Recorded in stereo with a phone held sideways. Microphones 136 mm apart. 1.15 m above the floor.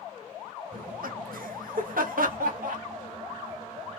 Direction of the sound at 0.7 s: 80° right.